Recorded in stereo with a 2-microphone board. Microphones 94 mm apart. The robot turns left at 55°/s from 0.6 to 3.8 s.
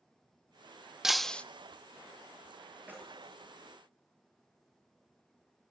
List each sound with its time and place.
1.0 s breaking glass: 5° right (ahead or behind), 0.6 m; by 1.4 s 15° left (ahead or behind), 0.6 m
2.9 s keys jangling: 15° right (ahead or behind), 8 m; by 3.2 s 35° right (ahead or behind), 8 m